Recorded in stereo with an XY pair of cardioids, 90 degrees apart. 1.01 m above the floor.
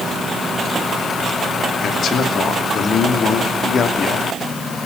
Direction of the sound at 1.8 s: 65° left.